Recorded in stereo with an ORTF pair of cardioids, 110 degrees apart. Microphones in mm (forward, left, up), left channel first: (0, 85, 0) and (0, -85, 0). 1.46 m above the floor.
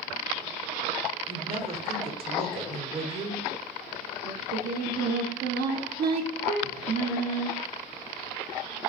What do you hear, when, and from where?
1.3 s a woman speaking: 35° right, 0.7 m
4.2 s singing: 65° right, 0.6 m